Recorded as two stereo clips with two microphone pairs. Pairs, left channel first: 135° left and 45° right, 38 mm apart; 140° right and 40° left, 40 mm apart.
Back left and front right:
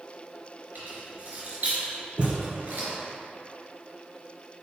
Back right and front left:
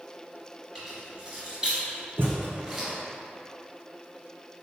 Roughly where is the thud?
Ahead.